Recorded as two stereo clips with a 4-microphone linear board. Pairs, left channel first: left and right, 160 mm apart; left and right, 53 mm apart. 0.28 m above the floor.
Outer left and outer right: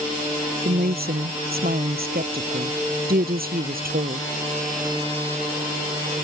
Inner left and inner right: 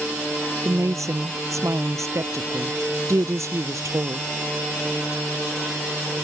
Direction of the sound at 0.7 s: 80° right.